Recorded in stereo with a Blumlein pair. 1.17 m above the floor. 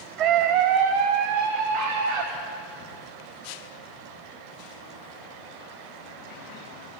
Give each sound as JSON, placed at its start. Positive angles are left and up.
{"t": 0.2, "sound": "a scream", "azimuth_deg": -35, "distance_m": 0.6}